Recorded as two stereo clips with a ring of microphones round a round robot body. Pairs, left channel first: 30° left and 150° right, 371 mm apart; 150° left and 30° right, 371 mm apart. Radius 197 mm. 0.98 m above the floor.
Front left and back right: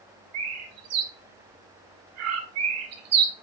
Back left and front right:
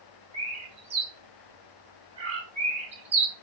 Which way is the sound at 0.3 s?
105° right.